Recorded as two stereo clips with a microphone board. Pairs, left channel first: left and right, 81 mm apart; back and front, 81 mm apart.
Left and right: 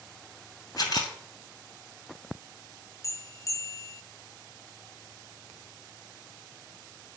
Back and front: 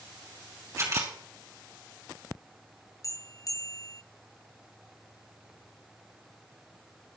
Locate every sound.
0.8 s a camera shutter: 55° left, 2.5 m
3.0 s a bell: 135° left, 0.6 m